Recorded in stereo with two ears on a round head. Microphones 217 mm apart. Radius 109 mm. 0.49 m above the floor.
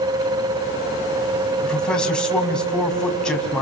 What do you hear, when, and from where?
1.6 s a man speaking: 5° left (ahead or behind), 3.5 m